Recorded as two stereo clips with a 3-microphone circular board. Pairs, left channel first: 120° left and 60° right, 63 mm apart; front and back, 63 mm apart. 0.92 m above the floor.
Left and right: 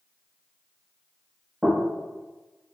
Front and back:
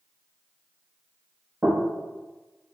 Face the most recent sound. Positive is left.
turn(degrees=-130)